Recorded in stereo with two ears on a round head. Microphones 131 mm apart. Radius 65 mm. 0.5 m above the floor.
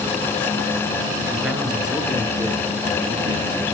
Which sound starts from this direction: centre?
A man speaking, at 1.3 s.